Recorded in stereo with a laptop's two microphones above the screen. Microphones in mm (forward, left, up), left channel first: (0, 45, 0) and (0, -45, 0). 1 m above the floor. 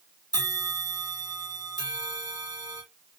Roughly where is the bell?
Right.